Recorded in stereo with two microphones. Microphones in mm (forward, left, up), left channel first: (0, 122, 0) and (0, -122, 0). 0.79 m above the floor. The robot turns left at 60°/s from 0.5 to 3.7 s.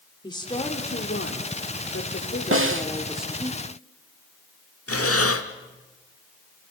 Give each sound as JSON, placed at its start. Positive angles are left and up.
{"t": 0.2, "sound": "a woman speaking", "azimuth_deg": 160, "distance_m": 2.5}
{"t": 2.5, "sound": "a snare drum", "side_deg": -65, "distance_m": 1.0}
{"t": 4.9, "sound": "breathing", "side_deg": 85, "distance_m": 1.2}